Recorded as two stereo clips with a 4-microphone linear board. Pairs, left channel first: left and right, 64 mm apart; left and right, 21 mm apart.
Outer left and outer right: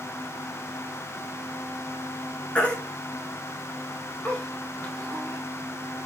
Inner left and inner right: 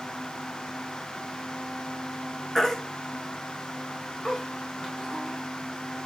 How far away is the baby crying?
About 1.6 m.